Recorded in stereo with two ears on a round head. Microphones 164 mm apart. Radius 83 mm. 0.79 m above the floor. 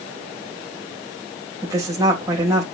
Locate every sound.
1.6 s a woman speaking: 15° right (ahead or behind), 3.5 m